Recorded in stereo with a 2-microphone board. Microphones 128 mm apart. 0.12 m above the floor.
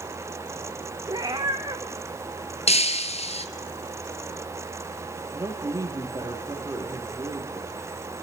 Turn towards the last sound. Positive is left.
turn(degrees=-25)  # may be behind; listen again after turning